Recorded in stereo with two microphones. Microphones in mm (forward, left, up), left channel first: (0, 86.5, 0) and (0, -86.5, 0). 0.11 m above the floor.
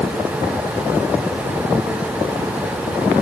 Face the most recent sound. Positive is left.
No sound to turn to.